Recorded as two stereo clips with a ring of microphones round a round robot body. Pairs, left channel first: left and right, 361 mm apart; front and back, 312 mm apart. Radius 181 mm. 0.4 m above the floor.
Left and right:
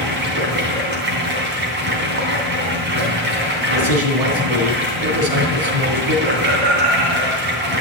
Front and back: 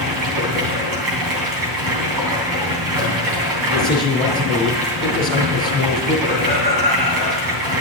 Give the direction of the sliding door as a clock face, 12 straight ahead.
No sliding door in this recording.